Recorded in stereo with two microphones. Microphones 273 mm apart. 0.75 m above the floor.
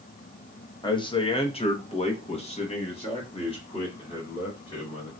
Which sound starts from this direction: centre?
A man speaking, at 0.8 s.